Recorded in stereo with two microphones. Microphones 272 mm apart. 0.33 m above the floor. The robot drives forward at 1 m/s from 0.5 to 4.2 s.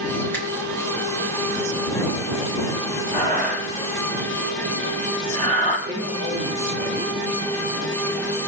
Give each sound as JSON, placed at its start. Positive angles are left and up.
{"t": 0.3, "sound": "a finger snap", "side_deg": 5, "distance_m": 3.5}
{"t": 3.1, "sound": "breathing", "side_deg": -35, "distance_m": 5.5}
{"t": 5.9, "sound": "a man speaking", "side_deg": -80, "distance_m": 5.5}